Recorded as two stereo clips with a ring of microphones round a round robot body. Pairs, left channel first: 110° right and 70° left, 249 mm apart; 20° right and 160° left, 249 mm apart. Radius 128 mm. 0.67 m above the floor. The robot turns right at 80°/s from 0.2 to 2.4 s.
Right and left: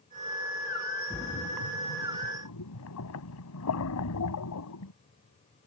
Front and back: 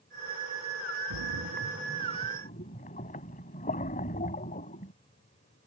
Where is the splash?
175° left; by 4.9 s 85° right.